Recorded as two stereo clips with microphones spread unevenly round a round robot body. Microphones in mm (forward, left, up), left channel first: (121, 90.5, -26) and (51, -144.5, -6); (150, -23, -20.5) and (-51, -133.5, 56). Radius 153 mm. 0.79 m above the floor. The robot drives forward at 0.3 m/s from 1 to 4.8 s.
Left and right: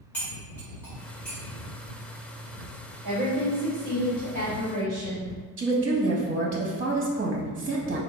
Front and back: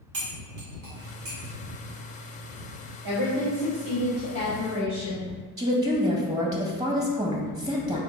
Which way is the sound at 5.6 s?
70° right.